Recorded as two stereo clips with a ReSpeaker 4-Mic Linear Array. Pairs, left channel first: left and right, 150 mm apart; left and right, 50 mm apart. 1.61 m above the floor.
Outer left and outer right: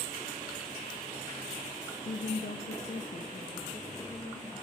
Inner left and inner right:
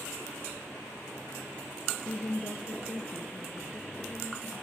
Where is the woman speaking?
50° left (ahead or behind), 0.7 m; by 4.5 s 30° left (ahead or behind), 3 m.